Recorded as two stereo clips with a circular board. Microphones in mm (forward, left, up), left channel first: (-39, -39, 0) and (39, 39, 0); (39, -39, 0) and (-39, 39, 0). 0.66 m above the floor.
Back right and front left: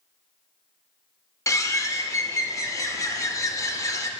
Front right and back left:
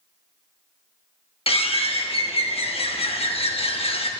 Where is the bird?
75° right, 0.7 m.